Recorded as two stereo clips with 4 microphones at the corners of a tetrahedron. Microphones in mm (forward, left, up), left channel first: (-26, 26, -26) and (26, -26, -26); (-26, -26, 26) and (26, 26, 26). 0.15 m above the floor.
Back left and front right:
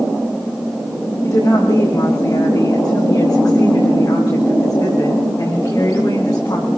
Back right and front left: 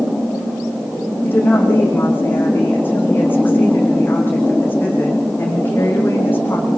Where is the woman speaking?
165° left, 9 m.